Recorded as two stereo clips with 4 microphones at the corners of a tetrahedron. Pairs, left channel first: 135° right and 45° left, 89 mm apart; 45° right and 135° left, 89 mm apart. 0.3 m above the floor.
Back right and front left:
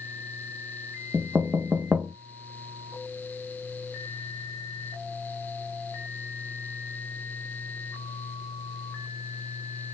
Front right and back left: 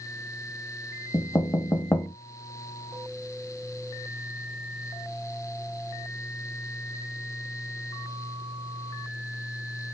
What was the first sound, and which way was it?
Knocking, 20° right.